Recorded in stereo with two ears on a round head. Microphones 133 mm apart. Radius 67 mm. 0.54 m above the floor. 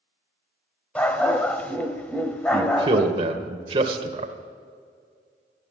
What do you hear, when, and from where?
0.9 s a dog barking: 10° left (ahead or behind), 1.0 m
2.5 s a man speaking: 35° right (ahead or behind), 1.6 m